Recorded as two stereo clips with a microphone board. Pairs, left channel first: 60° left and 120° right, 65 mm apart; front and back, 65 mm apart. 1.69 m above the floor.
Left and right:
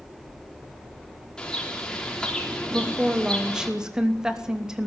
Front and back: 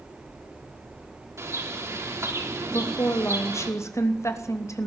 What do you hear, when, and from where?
1.4 s a bird: 140° left, 4 m
2.7 s a woman speaking: 40° right, 2.5 m